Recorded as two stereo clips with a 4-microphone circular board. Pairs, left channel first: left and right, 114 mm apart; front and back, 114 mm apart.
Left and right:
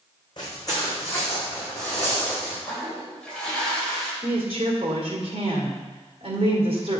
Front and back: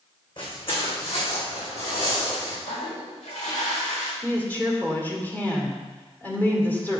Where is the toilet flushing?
5° left, 1.9 m.